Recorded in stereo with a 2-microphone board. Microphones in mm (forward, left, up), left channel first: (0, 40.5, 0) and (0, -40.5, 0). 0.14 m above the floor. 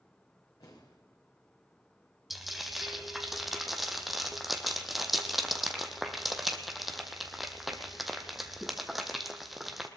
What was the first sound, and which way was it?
An explosion, 65° left (ahead or behind).